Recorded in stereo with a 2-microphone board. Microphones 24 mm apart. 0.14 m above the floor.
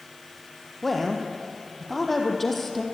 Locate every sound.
0.8 s a woman speaking: 10° left (ahead or behind), 4 m